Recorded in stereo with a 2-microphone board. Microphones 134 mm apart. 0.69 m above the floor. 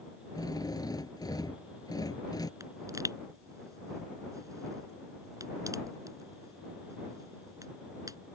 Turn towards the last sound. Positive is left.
turn(degrees=-25)  # may be behind; listen again after turning